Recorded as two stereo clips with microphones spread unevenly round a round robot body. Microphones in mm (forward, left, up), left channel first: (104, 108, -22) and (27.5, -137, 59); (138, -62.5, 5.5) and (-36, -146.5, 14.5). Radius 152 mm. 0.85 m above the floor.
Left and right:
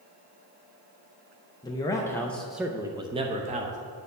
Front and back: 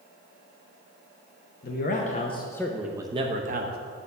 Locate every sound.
1.6 s a man speaking: 20° left, 0.9 m; by 3.8 s straight behind, 0.9 m